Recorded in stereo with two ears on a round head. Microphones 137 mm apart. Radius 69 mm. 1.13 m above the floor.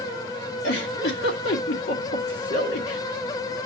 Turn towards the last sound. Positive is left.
turn(degrees=85)